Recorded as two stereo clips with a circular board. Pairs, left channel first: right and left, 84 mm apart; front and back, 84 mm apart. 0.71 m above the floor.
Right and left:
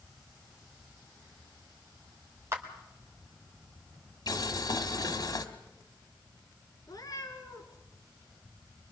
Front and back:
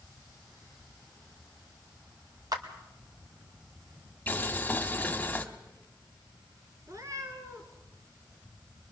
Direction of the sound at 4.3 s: 70° right.